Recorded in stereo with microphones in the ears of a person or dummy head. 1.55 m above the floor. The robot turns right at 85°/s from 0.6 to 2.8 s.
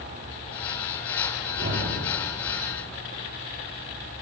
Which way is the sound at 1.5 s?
50° right (ahead or behind).